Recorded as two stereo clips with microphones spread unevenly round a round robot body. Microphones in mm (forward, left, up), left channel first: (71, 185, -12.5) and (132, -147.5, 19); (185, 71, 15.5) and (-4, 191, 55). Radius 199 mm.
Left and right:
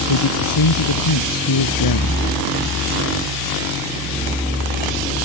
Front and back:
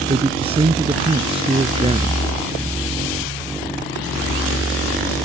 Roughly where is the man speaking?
Left.